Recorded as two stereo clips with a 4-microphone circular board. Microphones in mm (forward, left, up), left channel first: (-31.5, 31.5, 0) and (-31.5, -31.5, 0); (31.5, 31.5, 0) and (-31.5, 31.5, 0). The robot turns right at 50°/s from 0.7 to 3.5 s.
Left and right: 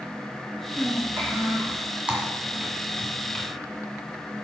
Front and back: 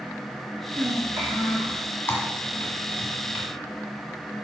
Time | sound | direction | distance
0.8 | a child speaking | 175° right | 1.5 m
2.1 | typing on a keyboard | 25° right | 1.8 m